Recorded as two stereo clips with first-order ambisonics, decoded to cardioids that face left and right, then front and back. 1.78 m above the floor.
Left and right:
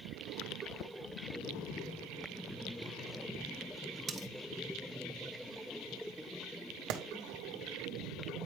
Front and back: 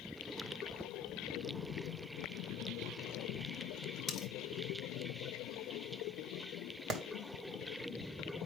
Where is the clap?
120° right, 1.1 m.